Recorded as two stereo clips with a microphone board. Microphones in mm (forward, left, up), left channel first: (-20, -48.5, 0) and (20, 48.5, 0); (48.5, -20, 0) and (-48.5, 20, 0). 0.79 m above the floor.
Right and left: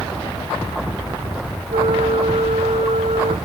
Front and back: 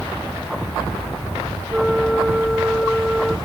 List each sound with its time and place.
1.7 s a flute: 70° left